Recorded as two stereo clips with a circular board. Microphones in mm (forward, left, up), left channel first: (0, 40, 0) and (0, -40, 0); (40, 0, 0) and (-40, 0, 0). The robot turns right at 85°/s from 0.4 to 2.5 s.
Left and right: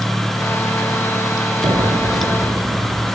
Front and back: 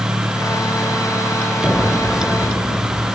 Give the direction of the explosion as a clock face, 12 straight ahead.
4 o'clock.